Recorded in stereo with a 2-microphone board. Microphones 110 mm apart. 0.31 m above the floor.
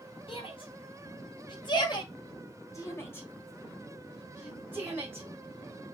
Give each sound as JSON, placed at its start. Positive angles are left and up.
{"t": 0.3, "sound": "a shout", "side_deg": 60, "distance_m": 2.5}